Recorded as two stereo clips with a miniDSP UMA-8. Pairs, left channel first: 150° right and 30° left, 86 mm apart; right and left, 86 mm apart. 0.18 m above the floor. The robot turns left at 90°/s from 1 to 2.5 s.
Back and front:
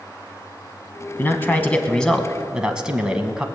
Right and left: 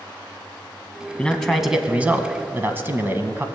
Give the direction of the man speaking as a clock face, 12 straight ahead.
5 o'clock.